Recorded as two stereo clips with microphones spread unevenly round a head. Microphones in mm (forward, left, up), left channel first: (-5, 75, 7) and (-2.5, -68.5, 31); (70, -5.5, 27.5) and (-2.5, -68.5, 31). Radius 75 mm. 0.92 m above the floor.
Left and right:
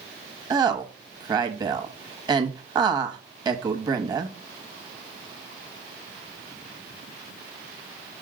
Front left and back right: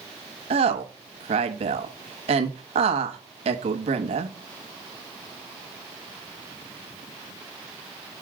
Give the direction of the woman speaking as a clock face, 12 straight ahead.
5 o'clock.